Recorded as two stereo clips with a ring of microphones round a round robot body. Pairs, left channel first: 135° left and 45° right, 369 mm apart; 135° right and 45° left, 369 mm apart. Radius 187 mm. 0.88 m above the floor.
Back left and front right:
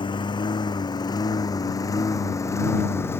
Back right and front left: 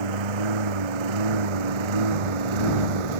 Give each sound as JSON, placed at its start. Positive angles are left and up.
{"t": 0.0, "sound": "a lawn mower", "azimuth_deg": 55}